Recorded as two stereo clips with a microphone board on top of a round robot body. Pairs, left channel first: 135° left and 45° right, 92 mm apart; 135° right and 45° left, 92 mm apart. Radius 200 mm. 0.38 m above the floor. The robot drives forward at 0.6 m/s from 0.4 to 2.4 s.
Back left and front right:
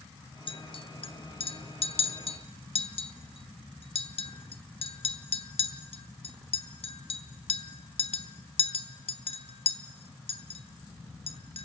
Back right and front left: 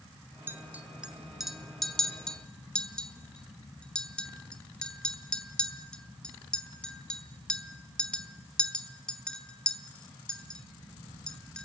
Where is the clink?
110° left, 1.4 m; by 11.7 s 145° left, 2 m.